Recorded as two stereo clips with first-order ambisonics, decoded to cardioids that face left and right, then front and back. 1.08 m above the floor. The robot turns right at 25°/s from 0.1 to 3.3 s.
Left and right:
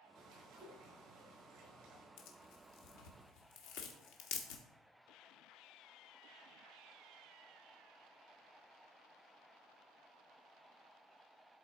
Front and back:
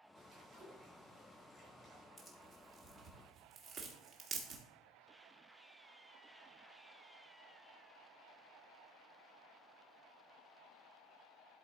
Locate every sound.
0.1 s a bird: 120° right, 5 m; by 2.1 s 70° right, 5 m
2.2 s tearing paper: 80° left, 1.5 m; by 4.6 s 110° left, 1.5 m